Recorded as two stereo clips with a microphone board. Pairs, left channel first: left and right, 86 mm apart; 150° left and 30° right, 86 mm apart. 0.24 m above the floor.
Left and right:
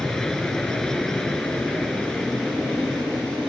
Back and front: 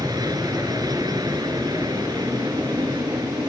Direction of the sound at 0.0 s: 5° left.